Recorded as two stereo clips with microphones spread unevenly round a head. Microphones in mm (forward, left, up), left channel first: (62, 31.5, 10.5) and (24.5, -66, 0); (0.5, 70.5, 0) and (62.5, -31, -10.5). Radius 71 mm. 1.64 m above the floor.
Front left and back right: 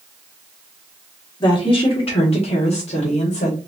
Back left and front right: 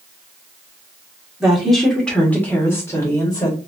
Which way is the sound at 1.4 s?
25° left.